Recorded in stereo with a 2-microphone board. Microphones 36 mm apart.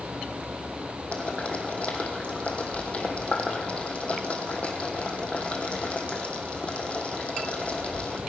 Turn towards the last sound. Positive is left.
turn(degrees=40)  # may be behind; listen again after turning